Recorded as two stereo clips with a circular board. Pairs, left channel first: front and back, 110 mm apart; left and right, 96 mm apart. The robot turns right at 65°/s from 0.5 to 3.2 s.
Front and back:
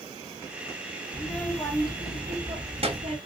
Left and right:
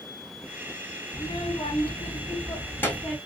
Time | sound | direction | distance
1.1 | a child speaking | 45° left | 1.7 m